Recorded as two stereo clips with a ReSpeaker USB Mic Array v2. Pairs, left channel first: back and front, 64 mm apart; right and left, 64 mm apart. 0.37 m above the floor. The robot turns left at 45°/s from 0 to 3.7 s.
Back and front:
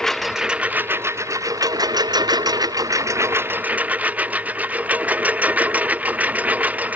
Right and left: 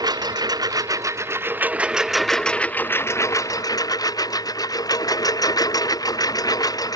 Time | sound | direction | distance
0.0 | a lawn mower | 100° left | ?